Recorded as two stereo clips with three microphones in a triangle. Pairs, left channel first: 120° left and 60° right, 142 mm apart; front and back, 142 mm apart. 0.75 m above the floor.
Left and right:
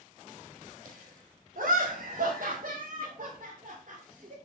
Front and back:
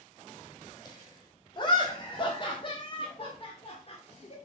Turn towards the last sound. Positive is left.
turn(degrees=-35)